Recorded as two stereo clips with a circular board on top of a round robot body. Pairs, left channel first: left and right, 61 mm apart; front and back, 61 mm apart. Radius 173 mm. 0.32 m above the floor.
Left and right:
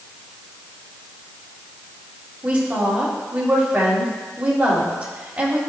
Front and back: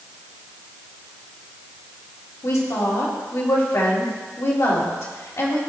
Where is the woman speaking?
20° right, 2.5 m.